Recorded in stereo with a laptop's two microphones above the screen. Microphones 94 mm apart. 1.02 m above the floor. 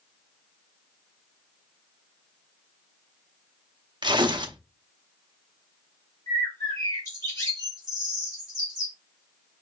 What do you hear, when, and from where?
4.0 s tearing paper: 50° right (ahead or behind), 0.6 m
6.3 s a bird: 30° left (ahead or behind), 1.6 m